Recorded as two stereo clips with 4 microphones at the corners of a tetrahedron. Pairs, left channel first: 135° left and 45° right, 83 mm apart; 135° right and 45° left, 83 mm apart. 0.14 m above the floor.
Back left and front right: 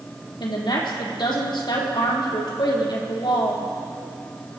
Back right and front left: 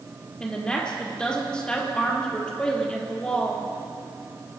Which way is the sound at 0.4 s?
145° left.